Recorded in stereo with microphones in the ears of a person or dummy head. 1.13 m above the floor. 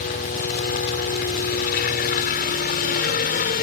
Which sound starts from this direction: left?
A helicopter, at 0.0 s.